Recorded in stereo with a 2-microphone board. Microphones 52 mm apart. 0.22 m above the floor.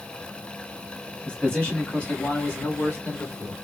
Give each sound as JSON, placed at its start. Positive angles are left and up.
{"t": 1.2, "sound": "a man speaking", "side_deg": 20, "distance_m": 1.5}